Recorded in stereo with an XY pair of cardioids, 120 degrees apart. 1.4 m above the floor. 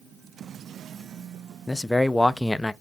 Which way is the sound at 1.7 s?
15° left.